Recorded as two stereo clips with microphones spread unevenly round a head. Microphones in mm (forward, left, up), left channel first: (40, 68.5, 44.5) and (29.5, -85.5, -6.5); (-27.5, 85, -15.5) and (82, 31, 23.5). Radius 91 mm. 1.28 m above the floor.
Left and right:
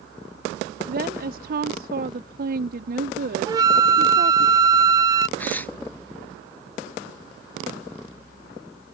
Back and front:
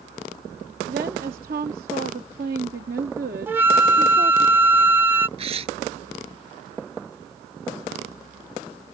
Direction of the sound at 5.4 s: 10° left.